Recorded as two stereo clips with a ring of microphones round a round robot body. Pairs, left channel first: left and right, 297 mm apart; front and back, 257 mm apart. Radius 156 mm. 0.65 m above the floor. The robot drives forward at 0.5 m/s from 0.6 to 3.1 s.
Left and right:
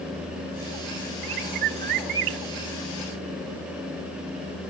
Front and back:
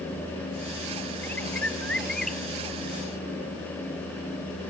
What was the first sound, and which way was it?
A bird, 85° right.